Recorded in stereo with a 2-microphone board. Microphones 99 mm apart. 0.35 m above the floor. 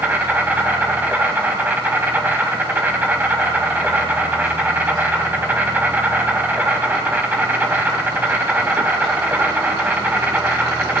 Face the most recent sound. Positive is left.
turn(degrees=-20)  # may be behind; listen again after turning